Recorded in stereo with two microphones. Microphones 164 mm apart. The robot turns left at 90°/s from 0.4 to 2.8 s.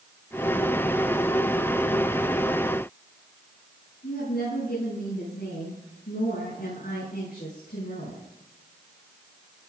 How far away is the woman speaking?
About 8 m.